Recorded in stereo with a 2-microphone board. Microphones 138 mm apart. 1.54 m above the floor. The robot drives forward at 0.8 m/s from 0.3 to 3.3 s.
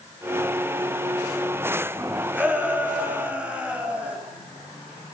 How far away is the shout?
About 9 m.